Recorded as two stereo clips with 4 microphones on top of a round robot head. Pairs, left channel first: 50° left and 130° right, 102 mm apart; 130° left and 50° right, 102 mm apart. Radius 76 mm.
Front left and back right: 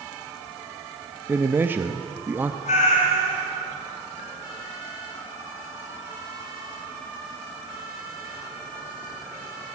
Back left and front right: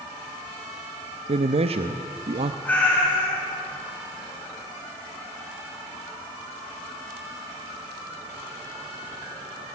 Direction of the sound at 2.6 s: 50° left.